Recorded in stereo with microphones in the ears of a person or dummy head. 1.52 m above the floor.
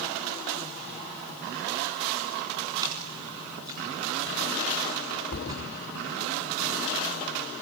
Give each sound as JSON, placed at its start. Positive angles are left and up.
{"t": 2.8, "sound": "a splash", "side_deg": -25, "distance_m": 4.0}
{"t": 5.3, "sound": "a thud", "side_deg": 40, "distance_m": 1.7}